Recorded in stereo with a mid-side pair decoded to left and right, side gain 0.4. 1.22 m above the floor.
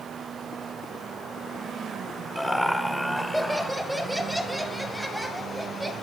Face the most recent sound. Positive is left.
turn(degrees=0)